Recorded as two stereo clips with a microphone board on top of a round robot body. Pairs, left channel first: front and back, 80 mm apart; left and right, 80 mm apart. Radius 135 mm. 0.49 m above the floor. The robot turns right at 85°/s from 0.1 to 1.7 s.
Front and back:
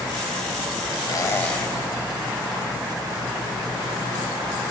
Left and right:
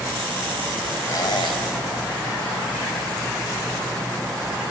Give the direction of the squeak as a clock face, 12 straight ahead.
11 o'clock.